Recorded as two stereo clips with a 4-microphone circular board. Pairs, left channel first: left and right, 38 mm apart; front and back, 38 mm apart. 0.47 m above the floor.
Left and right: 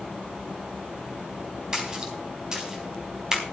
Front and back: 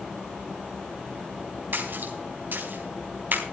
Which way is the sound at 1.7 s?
160° right.